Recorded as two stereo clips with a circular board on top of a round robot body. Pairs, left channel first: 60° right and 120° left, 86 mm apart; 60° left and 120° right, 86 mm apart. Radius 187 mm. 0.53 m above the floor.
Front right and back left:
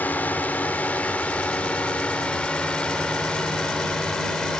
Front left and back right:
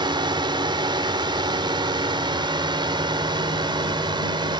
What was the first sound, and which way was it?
A drone, 130° right.